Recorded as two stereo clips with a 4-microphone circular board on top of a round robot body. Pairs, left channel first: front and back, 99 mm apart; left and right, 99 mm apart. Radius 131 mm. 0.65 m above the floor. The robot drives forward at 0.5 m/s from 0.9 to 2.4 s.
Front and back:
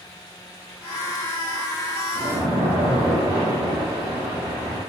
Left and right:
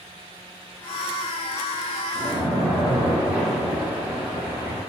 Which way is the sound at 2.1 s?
105° right.